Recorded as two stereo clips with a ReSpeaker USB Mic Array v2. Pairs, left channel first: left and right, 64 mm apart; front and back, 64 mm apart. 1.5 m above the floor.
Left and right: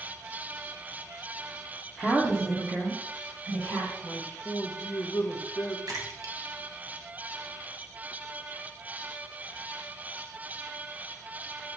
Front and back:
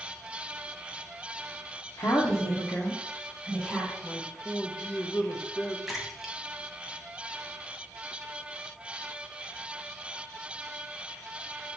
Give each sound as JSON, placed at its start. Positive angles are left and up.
{"t": 2.0, "sound": "a woman speaking", "azimuth_deg": -5, "distance_m": 0.7}
{"t": 4.0, "sound": "a man speaking", "azimuth_deg": 50, "distance_m": 0.6}
{"t": 5.9, "sound": "a splash", "azimuth_deg": -95, "distance_m": 0.7}